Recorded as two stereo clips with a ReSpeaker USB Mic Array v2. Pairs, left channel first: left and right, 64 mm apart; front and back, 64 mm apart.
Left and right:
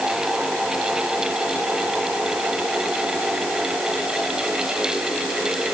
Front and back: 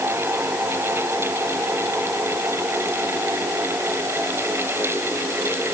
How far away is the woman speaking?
No woman speaking in this recording.